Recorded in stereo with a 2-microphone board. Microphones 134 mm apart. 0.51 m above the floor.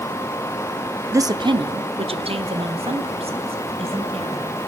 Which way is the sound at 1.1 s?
20° right (ahead or behind).